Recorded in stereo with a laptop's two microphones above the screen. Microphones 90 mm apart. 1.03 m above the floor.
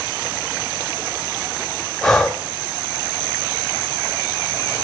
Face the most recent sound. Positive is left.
turn(degrees=5)  # may be behind; listen again after turning